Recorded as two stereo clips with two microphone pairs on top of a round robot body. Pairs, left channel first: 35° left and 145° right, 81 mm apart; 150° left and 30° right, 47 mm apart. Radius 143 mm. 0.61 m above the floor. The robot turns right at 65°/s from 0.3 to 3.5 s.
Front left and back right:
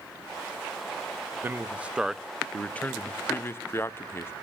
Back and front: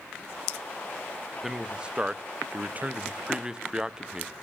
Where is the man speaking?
105° right, 0.7 m; by 4.3 s 30° left, 0.7 m.